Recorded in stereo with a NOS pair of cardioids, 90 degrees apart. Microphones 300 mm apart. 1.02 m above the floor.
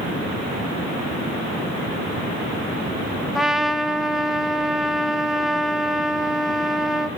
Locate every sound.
3.4 s a trumpet: straight ahead, 0.7 m